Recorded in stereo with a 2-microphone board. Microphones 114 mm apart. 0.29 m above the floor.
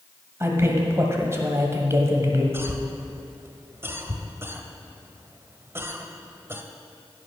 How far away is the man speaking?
About 1.7 m.